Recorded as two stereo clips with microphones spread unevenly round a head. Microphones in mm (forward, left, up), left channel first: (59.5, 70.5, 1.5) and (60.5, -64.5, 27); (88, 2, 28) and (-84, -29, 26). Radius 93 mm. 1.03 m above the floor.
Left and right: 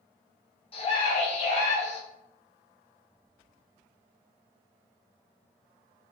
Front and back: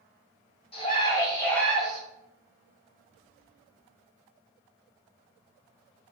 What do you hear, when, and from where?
0.7 s a scream: 65° left, 1.2 m; by 2.0 s 105° left, 1.2 m